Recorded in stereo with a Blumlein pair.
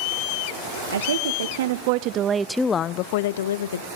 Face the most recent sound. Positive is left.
turn(degrees=70)